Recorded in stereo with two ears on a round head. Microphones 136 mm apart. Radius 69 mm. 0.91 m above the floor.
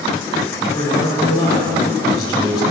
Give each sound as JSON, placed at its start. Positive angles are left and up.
{"t": 0.6, "sound": "a man speaking", "side_deg": 25, "distance_m": 3.0}